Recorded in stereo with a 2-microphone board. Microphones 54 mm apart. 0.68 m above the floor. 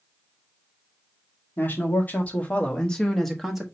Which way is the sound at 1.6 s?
40° left (ahead or behind).